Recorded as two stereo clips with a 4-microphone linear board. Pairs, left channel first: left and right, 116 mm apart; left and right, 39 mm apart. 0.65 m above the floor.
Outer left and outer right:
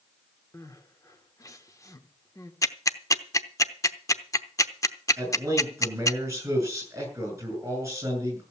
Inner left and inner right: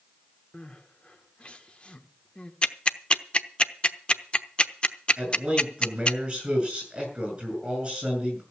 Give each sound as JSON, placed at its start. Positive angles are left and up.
{"t": 0.5, "sound": "crying", "side_deg": 30, "distance_m": 1.5}
{"t": 2.6, "sound": "ticking", "side_deg": 30, "distance_m": 0.7}
{"t": 5.2, "sound": "a man speaking", "side_deg": -25, "distance_m": 7.5}